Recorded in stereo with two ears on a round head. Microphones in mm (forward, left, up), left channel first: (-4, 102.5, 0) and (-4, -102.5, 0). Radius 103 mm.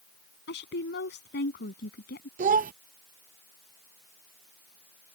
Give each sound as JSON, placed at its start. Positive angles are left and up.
{"t": 0.5, "sound": "a woman speaking", "side_deg": 50}
{"t": 2.4, "sound": "a child speaking", "side_deg": -35}